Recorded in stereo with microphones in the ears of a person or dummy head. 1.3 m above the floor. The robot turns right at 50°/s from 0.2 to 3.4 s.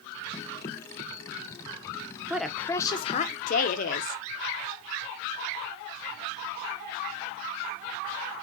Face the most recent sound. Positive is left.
turn(degrees=50)